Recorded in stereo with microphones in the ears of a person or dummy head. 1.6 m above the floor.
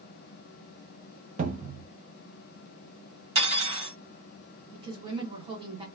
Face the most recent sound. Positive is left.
turn(degrees=-30)  # may be behind; listen again after turning